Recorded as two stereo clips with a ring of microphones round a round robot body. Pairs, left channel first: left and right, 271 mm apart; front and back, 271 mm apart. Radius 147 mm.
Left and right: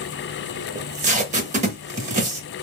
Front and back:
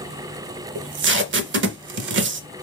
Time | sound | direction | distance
0.8 | tape being pulled | 150° right | 0.6 m